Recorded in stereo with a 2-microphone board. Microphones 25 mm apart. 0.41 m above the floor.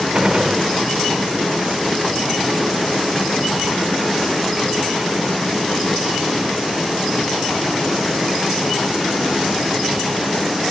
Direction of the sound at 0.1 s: 40° right (ahead or behind).